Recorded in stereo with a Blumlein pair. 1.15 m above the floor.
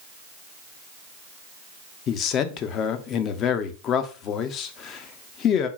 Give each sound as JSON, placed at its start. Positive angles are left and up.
{"t": 2.1, "sound": "a man speaking", "azimuth_deg": 30, "distance_m": 0.6}